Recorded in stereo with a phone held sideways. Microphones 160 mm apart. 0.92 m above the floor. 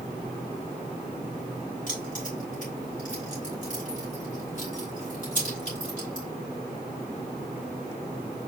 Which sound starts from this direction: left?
Keys jangling, at 1.9 s.